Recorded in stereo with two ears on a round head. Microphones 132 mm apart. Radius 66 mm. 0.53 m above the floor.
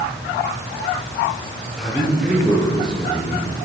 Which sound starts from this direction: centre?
A man speaking, at 1.8 s.